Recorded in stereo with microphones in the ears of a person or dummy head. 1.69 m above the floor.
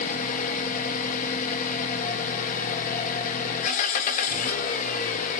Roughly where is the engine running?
Left.